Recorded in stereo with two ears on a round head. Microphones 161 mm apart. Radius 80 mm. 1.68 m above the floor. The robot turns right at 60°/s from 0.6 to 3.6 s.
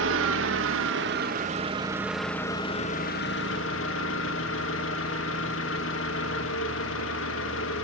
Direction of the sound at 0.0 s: 95° right.